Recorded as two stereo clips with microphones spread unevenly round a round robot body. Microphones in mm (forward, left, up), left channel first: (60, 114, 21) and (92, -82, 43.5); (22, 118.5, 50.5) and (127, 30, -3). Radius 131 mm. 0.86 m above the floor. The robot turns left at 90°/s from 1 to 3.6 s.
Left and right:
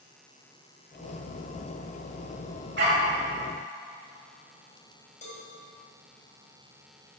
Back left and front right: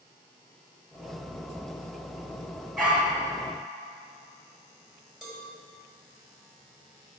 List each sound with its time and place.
2.8 s a dog barking: 130° right, 2.5 m; by 3.1 s 160° right, 2.5 m
5.2 s a cowbell: 45° left, 4 m